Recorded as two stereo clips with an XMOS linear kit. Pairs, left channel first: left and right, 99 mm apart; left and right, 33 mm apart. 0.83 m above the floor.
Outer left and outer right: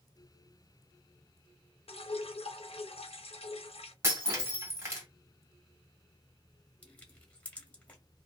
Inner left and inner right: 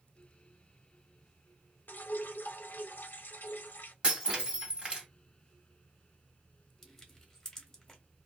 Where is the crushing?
15° left (ahead or behind), 1.0 m.